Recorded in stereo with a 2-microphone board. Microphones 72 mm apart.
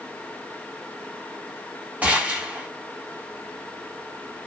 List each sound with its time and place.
2.0 s a gunshot: 20° right (ahead or behind), 1.0 m